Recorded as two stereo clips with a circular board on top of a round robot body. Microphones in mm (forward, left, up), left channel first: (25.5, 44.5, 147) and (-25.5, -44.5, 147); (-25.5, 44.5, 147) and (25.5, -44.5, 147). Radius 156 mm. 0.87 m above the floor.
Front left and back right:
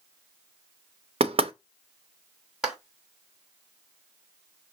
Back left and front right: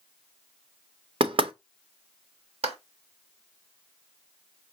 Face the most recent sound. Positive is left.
turn(degrees=-35)